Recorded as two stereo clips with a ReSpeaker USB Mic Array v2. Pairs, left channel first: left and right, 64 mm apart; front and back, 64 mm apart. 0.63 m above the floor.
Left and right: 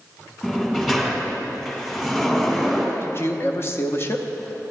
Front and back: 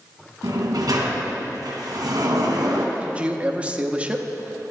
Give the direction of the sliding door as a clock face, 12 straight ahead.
6 o'clock.